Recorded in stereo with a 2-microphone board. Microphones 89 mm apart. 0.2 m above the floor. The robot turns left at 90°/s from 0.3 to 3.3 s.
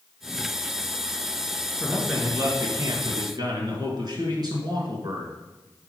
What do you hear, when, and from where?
1.8 s a man speaking: 15° left, 2.5 m; by 5.3 s 120° right, 2.5 m